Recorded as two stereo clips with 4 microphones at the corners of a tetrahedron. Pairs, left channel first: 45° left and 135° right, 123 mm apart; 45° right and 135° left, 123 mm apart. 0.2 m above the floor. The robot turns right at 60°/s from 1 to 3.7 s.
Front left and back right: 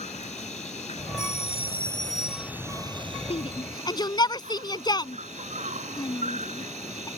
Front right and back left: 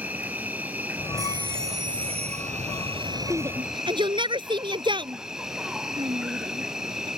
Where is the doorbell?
45° left; by 2.5 s 125° left.